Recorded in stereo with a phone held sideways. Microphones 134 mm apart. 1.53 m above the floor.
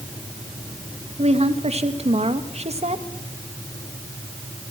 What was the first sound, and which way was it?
A woman speaking, 55° right (ahead or behind).